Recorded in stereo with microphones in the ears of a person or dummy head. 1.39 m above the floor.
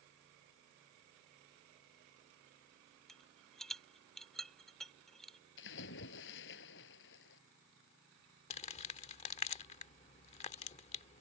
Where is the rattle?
Centre (ahead or behind).